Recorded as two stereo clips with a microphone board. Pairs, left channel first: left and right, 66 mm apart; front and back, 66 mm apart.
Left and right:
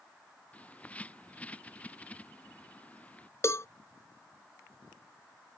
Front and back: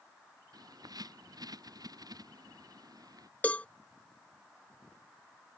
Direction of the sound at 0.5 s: 160° left.